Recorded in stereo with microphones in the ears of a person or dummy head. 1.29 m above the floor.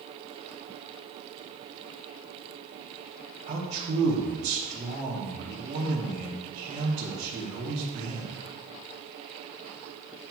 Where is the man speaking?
30° right (ahead or behind), 1.2 m.